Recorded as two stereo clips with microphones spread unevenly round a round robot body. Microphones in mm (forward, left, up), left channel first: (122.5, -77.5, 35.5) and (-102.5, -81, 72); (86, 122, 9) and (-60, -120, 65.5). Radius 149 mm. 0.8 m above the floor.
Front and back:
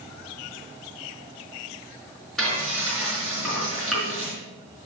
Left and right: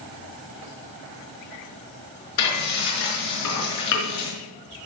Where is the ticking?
No ticking in this recording.